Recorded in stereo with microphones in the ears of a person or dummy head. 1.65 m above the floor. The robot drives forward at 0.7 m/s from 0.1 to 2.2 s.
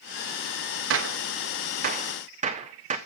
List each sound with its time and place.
0.9 s a gunshot: 75° right (ahead or behind), 0.8 m; by 3.0 s 40° right (ahead or behind), 1.2 m